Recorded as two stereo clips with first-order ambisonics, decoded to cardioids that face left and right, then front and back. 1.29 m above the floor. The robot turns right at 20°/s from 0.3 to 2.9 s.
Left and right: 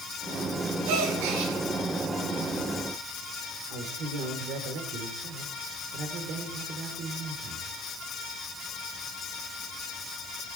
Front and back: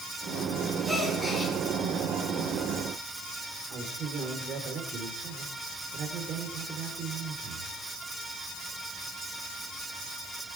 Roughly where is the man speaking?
Behind right.